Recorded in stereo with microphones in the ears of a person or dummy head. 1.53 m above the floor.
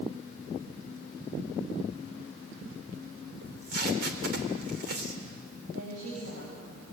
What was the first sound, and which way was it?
Tape being pulled, 55° right (ahead or behind).